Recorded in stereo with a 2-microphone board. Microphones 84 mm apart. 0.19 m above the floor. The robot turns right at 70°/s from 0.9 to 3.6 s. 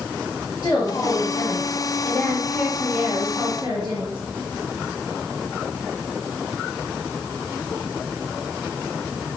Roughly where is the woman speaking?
Ahead left.